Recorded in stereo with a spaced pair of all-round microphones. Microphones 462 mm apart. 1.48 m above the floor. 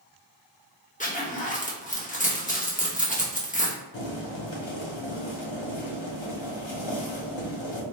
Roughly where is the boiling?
Left.